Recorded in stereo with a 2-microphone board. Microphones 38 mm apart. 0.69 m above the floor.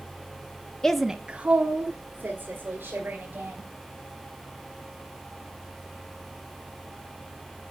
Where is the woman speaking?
20° left (ahead or behind), 0.5 m; by 3.7 s 60° right (ahead or behind), 3 m.